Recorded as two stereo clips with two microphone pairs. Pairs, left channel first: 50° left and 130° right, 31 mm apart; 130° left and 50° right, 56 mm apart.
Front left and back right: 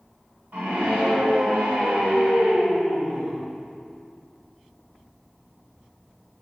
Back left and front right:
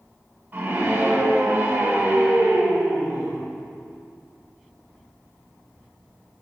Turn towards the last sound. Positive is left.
turn(degrees=-115)